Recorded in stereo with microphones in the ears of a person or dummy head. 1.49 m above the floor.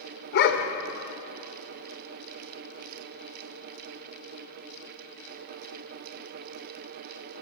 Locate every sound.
0.3 s a dog barking: 55° left (ahead or behind), 1.9 m